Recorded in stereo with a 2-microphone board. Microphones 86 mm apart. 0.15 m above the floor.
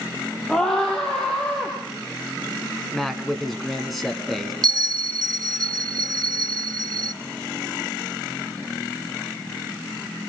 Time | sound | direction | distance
0.5 | a scream | 10° left (ahead or behind) | 4.5 m
2.9 | a man speaking | centre (ahead or behind) | 1.7 m
4.6 | a bell | 55° right (ahead or behind) | 0.8 m